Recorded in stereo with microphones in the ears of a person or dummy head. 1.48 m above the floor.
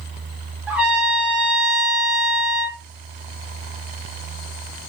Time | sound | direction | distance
0.7 | a trumpet | 10° right (ahead or behind) | 1.1 m